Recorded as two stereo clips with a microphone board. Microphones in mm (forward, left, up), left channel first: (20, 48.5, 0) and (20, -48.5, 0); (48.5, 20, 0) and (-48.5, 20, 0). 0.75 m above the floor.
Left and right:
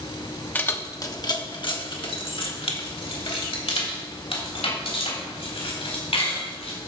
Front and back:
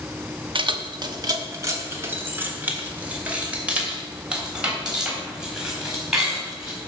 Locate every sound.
0.6 s keys jangling: 160° left, 0.8 m; by 6.8 s 95° left, 4.5 m